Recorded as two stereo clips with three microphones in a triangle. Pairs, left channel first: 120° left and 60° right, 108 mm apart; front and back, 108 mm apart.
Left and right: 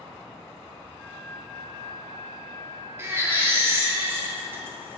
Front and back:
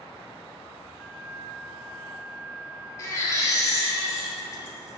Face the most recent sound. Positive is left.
turn(degrees=-15)